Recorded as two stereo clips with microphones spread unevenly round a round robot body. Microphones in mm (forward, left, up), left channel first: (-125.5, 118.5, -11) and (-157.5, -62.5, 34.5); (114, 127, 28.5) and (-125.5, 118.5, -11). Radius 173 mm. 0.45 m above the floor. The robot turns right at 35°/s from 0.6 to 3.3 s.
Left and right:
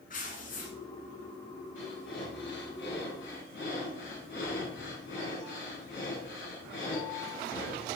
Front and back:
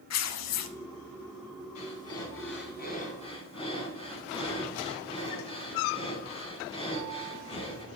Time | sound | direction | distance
0.1 | tearing paper | 10° left | 1.0 m
1.8 | breathing | 15° left | 4 m